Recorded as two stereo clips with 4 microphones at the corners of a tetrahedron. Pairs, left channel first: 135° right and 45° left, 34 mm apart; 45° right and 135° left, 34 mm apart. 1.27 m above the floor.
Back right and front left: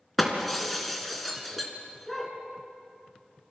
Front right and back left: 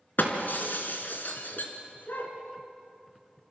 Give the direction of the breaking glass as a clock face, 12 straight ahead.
2 o'clock.